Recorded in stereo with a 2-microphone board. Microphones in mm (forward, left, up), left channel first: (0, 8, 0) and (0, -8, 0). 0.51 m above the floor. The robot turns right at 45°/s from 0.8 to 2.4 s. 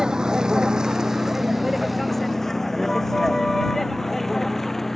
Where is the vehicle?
40° right (ahead or behind); by 5.0 s 25° left (ahead or behind).